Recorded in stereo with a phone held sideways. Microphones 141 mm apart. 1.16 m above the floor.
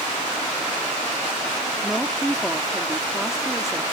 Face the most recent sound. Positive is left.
turn(degrees=0)  # may be behind; listen again after turning